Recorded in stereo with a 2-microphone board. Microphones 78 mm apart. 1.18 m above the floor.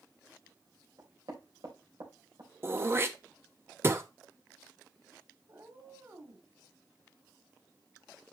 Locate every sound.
1.0 s knocking: 60° right (ahead or behind), 3.5 m
2.6 s throat clearing: 35° right (ahead or behind), 0.8 m
5.5 s a cat meowing: 45° right (ahead or behind), 1.9 m